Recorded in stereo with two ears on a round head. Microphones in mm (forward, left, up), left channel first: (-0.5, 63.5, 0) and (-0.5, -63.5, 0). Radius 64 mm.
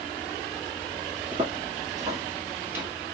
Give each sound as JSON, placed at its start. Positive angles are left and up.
{"t": 1.3, "sound": "footsteps", "side_deg": -35, "distance_m": 2.0}